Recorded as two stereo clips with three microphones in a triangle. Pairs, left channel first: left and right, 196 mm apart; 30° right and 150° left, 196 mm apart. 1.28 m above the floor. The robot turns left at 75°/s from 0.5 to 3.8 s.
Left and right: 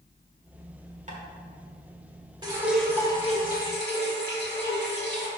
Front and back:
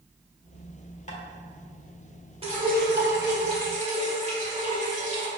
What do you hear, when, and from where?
1.1 s tapping: 60° right, 1.2 m; by 1.2 s 70° right, 1.2 m
2.4 s dripping: 155° right, 1.7 m; by 5.3 s 105° left, 1.7 m